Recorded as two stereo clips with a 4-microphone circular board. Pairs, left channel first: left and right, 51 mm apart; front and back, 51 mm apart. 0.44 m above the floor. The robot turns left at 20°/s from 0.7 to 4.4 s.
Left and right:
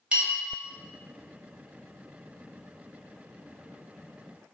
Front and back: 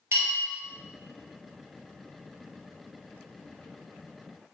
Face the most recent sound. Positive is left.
turn(degrees=130)